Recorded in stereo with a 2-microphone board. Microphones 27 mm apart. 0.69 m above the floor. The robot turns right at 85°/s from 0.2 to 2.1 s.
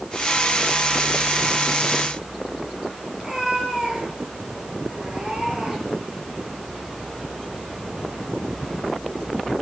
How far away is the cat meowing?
About 7.5 m.